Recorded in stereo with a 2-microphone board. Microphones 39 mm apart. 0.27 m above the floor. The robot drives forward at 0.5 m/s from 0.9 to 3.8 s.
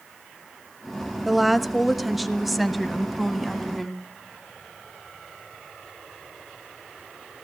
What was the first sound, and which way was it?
A woman speaking, 5° right (ahead or behind).